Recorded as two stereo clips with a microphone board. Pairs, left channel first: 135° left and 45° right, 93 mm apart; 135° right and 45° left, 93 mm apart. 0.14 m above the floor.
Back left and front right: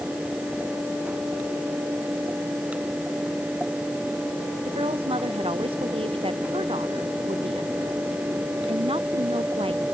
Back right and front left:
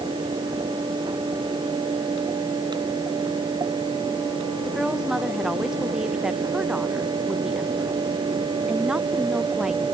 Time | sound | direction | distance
4.7 | a woman speaking | 35° right | ?